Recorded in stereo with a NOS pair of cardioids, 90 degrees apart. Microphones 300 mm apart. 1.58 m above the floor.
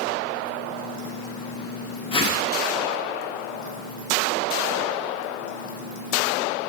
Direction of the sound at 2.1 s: 20° left.